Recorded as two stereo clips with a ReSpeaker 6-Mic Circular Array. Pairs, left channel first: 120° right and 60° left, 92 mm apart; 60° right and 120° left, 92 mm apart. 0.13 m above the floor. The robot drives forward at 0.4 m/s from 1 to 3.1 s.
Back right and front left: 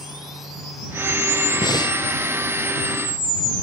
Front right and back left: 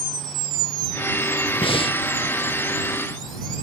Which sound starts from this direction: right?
Breathing, at 1.6 s.